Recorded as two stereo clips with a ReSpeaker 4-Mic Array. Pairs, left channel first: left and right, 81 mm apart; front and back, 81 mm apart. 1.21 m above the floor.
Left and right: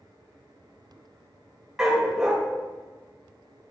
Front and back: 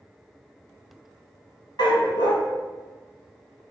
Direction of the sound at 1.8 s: 10° right.